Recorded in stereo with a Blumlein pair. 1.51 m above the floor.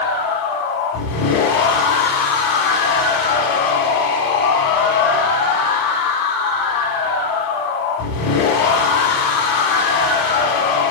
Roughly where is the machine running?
Ahead left.